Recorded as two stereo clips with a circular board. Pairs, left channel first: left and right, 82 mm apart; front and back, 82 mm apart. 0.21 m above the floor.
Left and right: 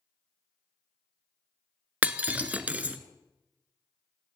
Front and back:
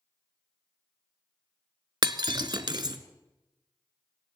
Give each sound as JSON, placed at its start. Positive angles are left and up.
{"t": 2.0, "sound": "breaking glass", "azimuth_deg": -160, "distance_m": 0.9}